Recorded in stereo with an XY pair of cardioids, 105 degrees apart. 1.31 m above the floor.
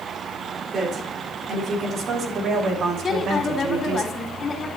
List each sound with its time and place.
0.7 s a woman speaking: 50° right, 4 m; by 4.0 s 75° right, 2.5 m
3.0 s a woman speaking: 40° left, 3.5 m